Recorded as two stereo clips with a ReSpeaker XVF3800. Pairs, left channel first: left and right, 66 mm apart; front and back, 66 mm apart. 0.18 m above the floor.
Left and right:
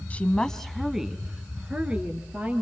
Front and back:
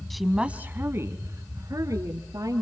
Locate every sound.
0.1 s a woman speaking: 80° left, 1.0 m; by 2.6 s 155° right, 3 m